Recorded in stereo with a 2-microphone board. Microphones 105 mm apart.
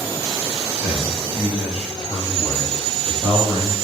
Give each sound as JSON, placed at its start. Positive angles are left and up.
{"t": 0.8, "sound": "a man speaking", "side_deg": -15, "distance_m": 1.4}